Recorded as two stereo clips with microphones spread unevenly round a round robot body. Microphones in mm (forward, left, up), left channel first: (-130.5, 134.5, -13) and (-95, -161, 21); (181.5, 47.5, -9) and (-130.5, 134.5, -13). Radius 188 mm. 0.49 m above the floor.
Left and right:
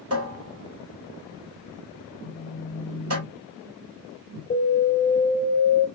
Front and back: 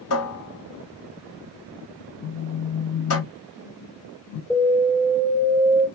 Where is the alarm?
70° left, 2 m.